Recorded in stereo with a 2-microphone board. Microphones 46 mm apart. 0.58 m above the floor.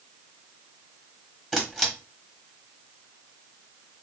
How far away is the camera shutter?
About 1.1 m.